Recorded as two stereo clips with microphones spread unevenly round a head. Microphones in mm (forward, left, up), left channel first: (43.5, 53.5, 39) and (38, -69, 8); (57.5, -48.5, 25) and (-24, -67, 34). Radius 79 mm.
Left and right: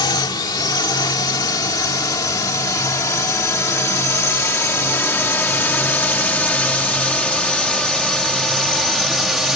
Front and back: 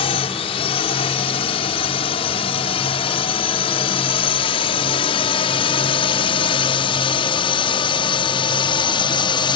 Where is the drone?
30° left; by 9.6 s 5° right.